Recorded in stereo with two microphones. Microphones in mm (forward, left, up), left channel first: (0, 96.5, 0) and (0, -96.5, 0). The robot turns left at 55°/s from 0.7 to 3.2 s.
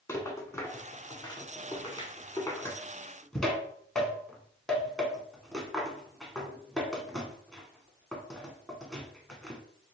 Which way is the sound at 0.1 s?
15° left (ahead or behind).